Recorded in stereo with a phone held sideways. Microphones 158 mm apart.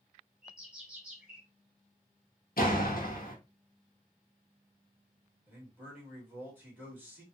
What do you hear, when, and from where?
0.4 s a bird: 5° right (ahead or behind), 1.7 m
2.6 s a door slam: 75° left (ahead or behind), 1.2 m
5.5 s a man speaking: 10° right (ahead or behind), 2 m